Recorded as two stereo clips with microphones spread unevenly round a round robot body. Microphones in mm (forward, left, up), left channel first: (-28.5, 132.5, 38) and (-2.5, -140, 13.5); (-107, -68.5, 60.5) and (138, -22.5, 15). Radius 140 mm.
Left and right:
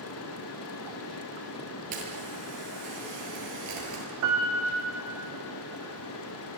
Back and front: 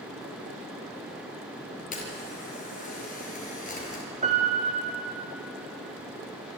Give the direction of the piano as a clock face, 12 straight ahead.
2 o'clock.